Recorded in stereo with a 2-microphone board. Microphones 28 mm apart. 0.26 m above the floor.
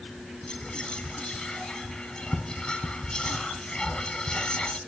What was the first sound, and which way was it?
Whispering, 30° left (ahead or behind).